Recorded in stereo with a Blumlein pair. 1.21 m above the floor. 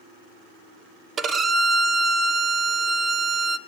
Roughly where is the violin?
Ahead.